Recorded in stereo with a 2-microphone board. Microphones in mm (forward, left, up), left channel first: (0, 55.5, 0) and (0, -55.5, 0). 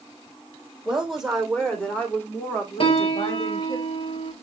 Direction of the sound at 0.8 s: 5° right (ahead or behind).